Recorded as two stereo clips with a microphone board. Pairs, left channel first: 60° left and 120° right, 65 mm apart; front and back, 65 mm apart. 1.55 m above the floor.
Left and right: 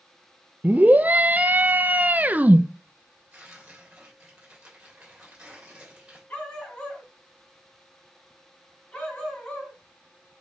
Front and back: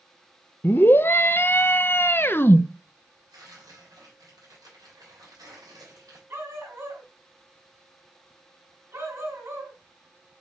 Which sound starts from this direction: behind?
Tearing paper, at 3.3 s.